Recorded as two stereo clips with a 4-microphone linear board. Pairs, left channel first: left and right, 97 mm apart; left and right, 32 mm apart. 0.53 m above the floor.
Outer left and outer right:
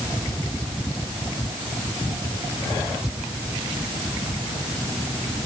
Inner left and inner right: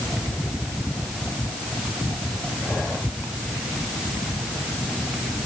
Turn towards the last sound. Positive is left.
No sound to turn to.